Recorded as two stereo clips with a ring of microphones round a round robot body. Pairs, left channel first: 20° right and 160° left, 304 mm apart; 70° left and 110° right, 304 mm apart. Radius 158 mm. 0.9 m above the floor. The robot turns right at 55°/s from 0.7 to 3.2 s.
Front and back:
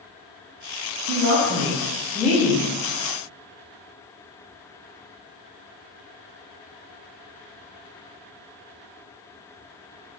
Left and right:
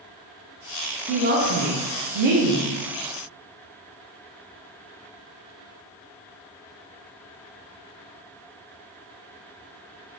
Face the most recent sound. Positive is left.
turn(degrees=-60)